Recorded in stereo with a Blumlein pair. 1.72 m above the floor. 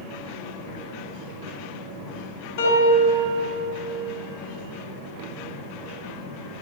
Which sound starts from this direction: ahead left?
A piano, at 2.6 s.